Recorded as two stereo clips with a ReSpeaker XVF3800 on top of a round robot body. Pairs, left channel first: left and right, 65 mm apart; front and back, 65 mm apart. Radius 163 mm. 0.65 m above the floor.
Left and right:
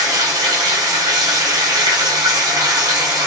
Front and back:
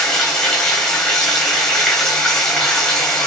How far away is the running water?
About 0.9 m.